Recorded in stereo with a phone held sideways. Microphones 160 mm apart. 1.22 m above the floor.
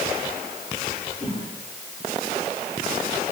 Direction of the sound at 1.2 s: 40° left (ahead or behind).